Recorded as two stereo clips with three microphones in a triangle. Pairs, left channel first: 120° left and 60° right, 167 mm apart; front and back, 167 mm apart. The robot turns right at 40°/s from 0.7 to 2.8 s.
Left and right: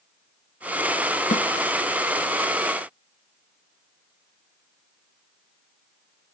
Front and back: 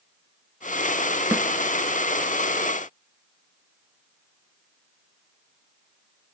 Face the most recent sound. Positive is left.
turn(degrees=170)